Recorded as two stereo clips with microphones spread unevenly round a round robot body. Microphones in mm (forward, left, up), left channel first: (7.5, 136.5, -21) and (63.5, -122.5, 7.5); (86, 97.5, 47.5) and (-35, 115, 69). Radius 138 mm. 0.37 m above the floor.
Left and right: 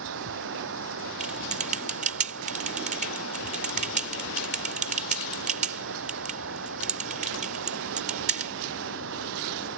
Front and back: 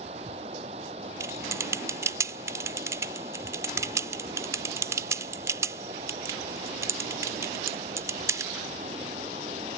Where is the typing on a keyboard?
125° right.